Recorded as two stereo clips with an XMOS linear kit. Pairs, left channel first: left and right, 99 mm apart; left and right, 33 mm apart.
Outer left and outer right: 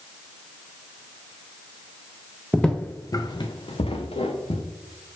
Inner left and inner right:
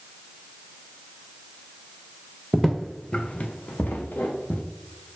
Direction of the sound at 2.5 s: Centre (ahead or behind).